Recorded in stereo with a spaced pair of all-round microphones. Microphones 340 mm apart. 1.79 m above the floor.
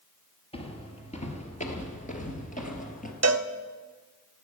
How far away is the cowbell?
About 0.6 m.